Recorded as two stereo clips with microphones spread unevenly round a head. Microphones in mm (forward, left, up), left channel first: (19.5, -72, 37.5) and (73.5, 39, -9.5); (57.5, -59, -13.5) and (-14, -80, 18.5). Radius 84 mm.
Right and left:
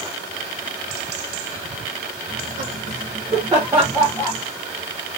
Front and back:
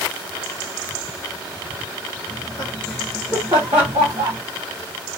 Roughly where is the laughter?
Ahead left.